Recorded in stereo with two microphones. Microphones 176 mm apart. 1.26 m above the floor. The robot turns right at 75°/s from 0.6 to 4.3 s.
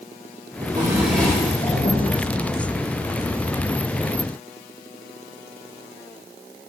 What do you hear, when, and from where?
0.6 s a drawer: 40° right, 3.5 m; by 2.0 s 70° left, 3.5 m